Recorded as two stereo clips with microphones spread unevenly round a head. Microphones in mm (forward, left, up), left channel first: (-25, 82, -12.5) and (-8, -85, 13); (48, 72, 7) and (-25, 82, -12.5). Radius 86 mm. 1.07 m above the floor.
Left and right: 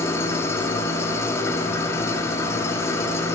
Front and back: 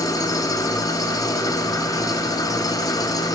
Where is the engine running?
15° left, 0.9 m.